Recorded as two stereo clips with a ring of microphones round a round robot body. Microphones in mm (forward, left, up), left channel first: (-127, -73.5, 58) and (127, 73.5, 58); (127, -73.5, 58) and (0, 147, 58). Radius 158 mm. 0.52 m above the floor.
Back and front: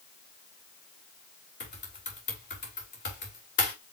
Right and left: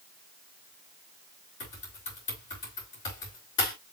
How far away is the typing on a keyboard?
About 3 m.